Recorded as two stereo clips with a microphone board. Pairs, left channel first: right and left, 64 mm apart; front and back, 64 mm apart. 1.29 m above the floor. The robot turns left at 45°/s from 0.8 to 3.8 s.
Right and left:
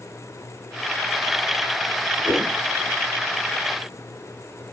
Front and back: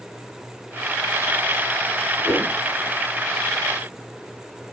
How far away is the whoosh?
About 2.5 m.